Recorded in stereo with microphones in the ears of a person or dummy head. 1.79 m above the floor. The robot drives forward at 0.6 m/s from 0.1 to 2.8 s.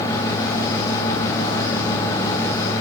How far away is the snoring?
No snoring in this recording.